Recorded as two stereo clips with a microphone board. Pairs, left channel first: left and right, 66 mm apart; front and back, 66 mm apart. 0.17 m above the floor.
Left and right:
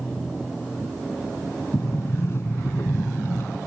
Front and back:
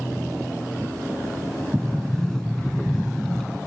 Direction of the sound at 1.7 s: 75° left.